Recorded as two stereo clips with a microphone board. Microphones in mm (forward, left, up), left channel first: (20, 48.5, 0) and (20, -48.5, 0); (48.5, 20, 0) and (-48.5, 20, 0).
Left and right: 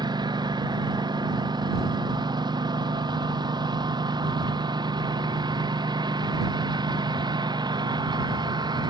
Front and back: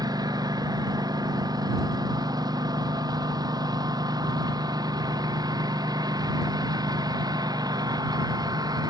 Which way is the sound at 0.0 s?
135° right.